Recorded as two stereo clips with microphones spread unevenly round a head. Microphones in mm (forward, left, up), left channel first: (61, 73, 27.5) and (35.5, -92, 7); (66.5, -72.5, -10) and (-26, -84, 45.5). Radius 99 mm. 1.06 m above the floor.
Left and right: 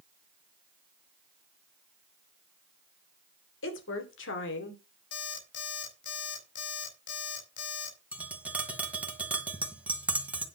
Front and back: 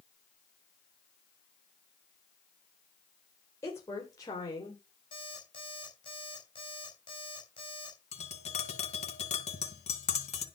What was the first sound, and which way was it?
A woman speaking, 80° left.